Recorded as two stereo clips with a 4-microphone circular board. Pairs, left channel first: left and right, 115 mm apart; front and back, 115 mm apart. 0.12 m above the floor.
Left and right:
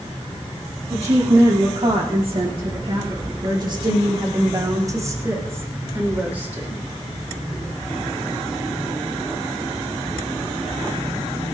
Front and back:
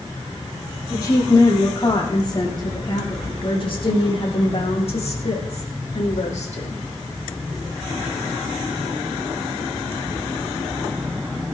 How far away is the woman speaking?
About 8 m.